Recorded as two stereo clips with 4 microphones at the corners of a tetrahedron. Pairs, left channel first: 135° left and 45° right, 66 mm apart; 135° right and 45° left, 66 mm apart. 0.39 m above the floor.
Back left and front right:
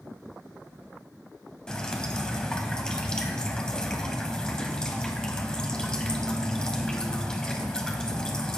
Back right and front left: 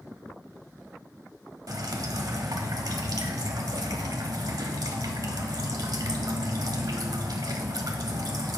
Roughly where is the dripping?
Ahead left.